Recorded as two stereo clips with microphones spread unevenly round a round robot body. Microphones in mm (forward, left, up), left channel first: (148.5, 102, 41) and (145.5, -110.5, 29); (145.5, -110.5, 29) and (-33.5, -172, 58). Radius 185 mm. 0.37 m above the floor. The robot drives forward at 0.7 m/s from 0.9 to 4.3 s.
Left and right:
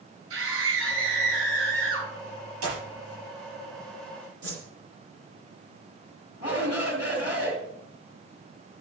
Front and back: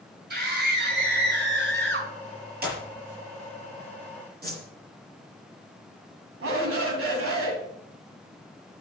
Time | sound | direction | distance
0.3 | a scream | 125° right | 5 m
2.6 | a clap | 120° right | 6.5 m
4.4 | a whoosh | 120° right | 3 m
6.4 | a shout | 165° right | 2.5 m